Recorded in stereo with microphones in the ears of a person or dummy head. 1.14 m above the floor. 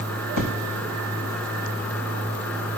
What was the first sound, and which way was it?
An explosion, 85° left.